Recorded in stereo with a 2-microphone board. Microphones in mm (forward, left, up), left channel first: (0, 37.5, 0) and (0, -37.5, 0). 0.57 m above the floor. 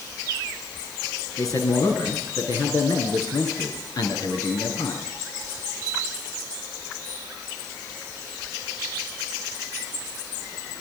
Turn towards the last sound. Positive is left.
turn(degrees=60)  # may be behind; listen again after turning